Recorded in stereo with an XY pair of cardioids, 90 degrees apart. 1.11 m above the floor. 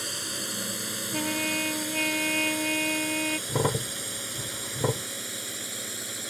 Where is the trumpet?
5° left.